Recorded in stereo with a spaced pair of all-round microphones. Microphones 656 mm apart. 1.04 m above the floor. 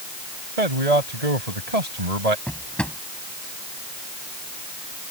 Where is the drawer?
Centre (ahead or behind).